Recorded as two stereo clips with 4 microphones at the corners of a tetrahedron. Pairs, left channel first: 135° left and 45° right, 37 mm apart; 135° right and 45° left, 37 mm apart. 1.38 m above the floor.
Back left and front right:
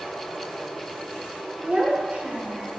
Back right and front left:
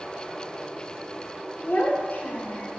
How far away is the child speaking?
About 1.0 m.